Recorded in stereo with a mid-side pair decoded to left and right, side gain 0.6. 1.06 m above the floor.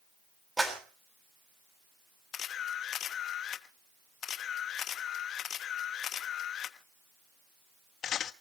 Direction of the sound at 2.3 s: 50° left.